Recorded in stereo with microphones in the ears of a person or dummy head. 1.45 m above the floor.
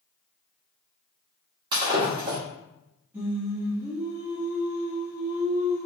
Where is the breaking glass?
20° right (ahead or behind), 1.4 m.